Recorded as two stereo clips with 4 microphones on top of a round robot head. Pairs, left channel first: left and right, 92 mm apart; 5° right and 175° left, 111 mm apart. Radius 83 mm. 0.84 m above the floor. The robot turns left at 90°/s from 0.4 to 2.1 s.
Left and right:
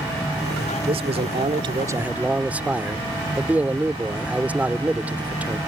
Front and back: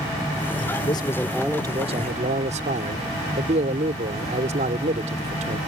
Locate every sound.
0.9 s a man speaking: 55° right; by 5.6 s 165° right